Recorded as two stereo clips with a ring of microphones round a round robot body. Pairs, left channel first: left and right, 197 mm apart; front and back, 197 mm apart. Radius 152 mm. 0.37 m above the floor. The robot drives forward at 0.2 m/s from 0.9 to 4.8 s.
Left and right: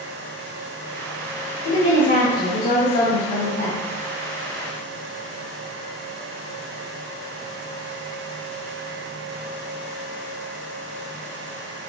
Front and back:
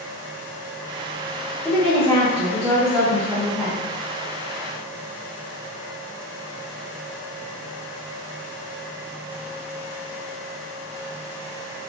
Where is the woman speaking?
70° left, 1.1 m; by 3.8 s 105° left, 1.1 m.